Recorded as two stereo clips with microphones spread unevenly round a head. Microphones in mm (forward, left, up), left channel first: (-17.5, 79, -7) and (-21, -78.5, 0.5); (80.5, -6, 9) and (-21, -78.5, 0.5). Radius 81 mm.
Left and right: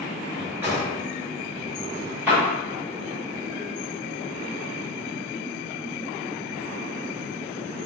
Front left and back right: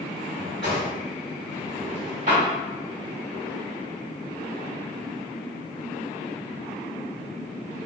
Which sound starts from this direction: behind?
A drawer, at 0.3 s.